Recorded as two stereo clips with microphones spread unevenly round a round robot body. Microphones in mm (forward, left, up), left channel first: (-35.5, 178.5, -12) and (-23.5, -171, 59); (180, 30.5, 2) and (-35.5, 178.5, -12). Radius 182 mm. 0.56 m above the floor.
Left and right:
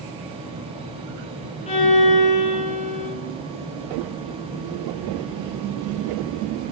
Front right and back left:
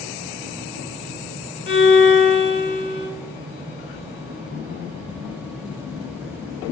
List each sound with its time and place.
1.7 s a violin: 15° left, 1.1 m